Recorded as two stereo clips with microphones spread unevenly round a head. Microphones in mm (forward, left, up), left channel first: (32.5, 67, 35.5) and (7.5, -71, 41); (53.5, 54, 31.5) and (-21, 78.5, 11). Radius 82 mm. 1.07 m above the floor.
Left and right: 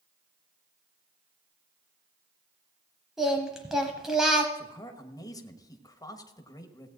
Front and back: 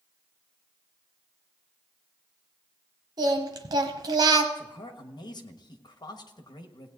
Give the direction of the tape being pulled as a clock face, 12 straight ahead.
I don't hear tape being pulled.